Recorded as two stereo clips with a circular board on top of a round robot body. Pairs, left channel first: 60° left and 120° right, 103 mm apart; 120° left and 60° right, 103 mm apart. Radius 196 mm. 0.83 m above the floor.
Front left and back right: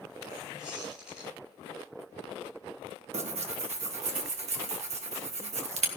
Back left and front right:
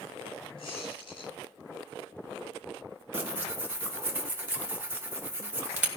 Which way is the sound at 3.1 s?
130° right.